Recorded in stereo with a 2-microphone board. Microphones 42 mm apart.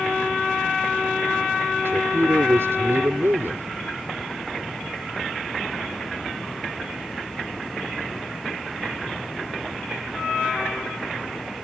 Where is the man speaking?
75° right (ahead or behind).